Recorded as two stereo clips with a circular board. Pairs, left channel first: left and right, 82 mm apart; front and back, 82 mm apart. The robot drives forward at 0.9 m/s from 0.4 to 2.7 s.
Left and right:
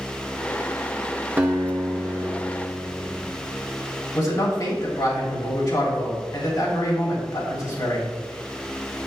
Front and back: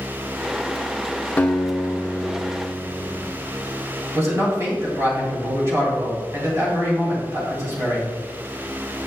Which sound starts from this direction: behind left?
A man speaking, at 4.2 s.